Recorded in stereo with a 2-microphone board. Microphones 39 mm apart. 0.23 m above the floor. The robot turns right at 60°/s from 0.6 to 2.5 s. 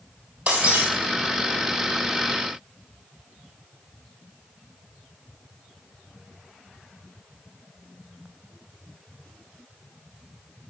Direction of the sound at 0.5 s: 40° right (ahead or behind).